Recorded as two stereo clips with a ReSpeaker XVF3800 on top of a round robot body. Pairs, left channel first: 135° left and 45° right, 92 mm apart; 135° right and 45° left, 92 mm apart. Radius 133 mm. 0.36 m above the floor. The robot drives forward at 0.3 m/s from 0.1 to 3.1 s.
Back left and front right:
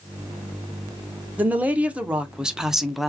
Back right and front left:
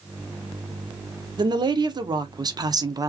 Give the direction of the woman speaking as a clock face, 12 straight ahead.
11 o'clock.